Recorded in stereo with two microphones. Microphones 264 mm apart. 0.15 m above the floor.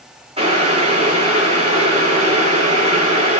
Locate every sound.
0.4 s boiling: 25° right (ahead or behind), 8 m